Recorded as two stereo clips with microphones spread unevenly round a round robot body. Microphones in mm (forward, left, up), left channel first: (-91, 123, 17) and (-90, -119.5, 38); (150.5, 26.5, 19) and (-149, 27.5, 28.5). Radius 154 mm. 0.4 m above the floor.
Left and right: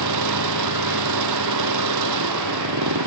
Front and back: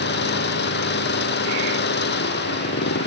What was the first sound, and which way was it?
An engine running, 60° right.